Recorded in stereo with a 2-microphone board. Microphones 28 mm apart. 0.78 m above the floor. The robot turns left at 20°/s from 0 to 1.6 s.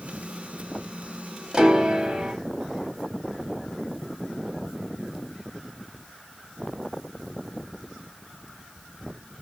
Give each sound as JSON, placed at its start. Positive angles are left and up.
{"t": 1.5, "sound": "a piano", "side_deg": -25, "distance_m": 0.7}